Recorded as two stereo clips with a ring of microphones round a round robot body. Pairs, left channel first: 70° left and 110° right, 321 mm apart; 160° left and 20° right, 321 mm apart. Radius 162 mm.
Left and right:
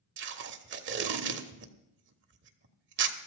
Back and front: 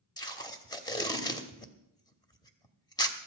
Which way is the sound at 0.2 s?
135° right.